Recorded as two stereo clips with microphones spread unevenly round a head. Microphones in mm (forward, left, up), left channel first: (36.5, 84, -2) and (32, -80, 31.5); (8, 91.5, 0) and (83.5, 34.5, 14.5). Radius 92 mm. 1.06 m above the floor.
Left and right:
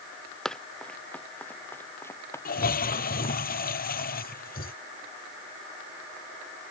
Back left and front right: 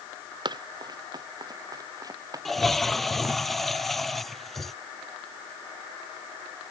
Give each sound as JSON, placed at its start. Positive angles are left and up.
{"t": 0.5, "sound": "running footsteps", "azimuth_deg": 0}
{"t": 2.5, "sound": "a toilet flushing", "azimuth_deg": 55}